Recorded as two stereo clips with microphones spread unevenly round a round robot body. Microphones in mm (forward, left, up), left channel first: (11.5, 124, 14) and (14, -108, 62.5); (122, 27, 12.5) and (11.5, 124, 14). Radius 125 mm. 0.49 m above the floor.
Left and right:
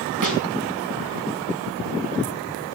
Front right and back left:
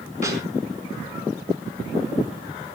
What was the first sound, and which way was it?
A snare drum, 100° right.